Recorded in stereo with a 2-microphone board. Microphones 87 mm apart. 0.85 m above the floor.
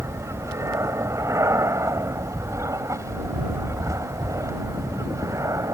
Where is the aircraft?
35° right (ahead or behind); by 5.7 s 40° right (ahead or behind).